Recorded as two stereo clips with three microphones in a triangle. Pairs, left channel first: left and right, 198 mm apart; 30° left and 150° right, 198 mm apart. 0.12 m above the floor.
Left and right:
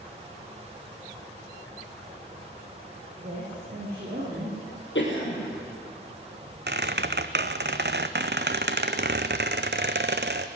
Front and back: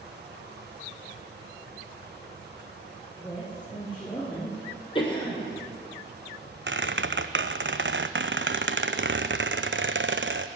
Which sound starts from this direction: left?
A cough, at 5.0 s.